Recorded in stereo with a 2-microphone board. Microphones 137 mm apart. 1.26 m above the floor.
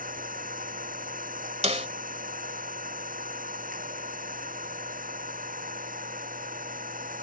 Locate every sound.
0.0 s an engine running: 85° right
1.6 s a snare drum: 50° right (ahead or behind)